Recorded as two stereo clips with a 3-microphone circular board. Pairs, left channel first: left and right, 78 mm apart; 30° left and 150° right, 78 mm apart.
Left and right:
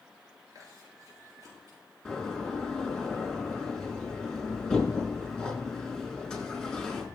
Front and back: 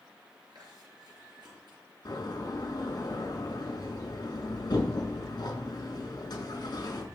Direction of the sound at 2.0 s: 5° left.